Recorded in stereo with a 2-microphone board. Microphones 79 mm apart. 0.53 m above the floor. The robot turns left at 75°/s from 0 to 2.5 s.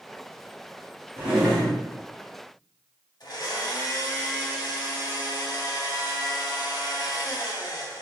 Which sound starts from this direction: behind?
A drawer, at 1.2 s.